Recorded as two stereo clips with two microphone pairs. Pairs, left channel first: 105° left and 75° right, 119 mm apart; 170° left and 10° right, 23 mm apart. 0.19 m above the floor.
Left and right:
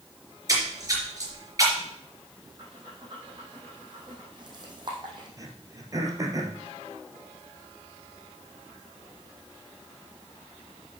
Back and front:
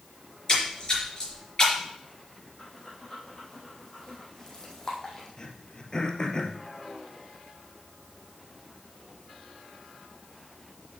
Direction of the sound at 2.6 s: 125° right.